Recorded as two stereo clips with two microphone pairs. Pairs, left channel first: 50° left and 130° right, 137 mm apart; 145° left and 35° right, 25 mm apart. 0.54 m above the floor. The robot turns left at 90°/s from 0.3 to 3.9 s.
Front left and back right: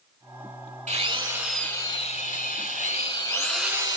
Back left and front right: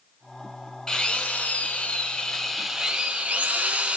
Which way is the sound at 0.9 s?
155° right.